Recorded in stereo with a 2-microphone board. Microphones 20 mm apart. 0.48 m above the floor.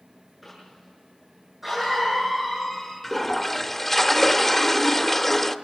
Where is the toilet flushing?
15° left (ahead or behind), 0.7 m.